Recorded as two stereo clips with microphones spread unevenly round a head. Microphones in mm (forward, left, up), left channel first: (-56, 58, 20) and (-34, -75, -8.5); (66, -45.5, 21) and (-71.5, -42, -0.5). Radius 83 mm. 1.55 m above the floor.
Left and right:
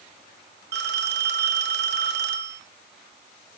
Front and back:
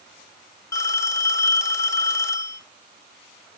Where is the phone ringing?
65° right, 2 m.